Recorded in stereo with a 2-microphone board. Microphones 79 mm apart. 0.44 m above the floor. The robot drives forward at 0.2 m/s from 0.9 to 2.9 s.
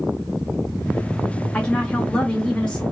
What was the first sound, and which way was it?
A woman speaking, 15° left (ahead or behind).